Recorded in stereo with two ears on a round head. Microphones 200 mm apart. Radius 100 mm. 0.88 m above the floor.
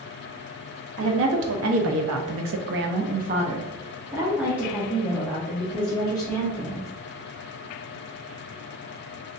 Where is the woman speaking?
60° right (ahead or behind), 1.1 m; by 6.9 s 10° left (ahead or behind), 2 m.